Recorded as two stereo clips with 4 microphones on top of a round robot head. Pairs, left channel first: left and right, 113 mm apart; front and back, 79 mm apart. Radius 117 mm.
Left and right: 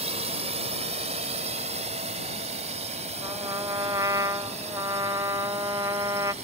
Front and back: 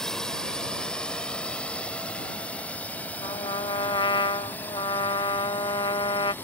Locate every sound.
0.0 s a drone: 85° right; by 6.4 s 70° right
3.2 s a trumpet: 25° right